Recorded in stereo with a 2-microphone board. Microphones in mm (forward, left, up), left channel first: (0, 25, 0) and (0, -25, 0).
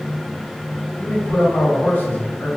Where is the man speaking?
35° left (ahead or behind), 1.7 m.